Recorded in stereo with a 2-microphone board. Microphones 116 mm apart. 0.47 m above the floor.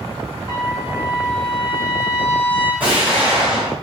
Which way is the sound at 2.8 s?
15° right (ahead or behind).